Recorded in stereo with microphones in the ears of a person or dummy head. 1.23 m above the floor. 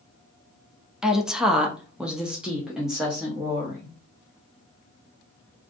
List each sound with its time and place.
1.0 s a woman speaking: centre (ahead or behind), 0.6 m; by 3.9 s 5° right (ahead or behind), 1.2 m